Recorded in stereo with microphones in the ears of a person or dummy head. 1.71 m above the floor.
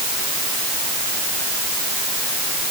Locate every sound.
Only background noise.